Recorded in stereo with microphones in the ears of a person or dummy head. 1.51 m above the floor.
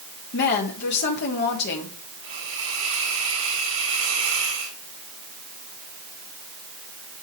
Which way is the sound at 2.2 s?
45° right (ahead or behind).